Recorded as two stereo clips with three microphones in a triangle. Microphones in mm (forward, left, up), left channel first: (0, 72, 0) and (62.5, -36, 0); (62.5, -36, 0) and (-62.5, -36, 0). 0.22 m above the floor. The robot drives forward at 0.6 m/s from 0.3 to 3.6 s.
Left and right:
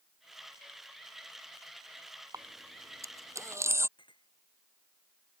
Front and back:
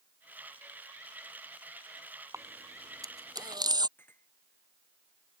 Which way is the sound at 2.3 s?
115° right.